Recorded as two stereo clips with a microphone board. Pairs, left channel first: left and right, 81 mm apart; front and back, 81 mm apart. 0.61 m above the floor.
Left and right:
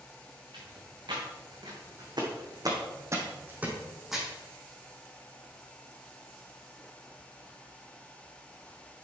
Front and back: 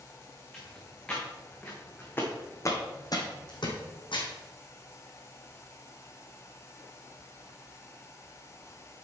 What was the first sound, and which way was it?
Footsteps, 90° right.